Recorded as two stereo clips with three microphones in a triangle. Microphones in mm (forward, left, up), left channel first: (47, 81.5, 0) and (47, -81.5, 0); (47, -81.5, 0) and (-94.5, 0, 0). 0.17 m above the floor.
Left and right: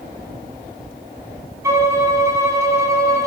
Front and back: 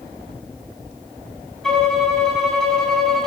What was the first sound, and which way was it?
A violin, 115° right.